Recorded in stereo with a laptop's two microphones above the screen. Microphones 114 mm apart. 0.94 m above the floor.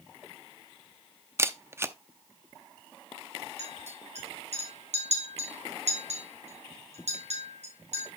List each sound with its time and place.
1.4 s a camera shutter: 25° right (ahead or behind), 0.6 m
3.6 s a clink: 80° right, 4.5 m